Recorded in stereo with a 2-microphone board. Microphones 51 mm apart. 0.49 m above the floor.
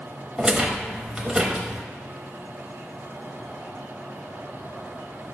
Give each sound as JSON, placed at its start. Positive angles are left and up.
{"t": 0.4, "sound": "a rattle", "side_deg": -20, "distance_m": 0.8}